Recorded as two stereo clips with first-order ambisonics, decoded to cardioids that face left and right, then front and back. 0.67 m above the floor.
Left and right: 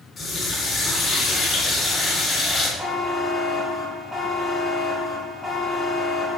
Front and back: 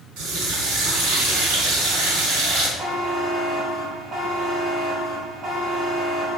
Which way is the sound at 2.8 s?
170° right.